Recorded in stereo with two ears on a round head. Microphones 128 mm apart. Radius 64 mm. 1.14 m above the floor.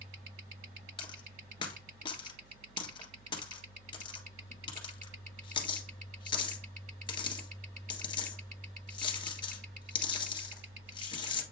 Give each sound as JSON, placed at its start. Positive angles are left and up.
{"t": 1.0, "sound": "a dropped coin", "side_deg": 35, "distance_m": 1.5}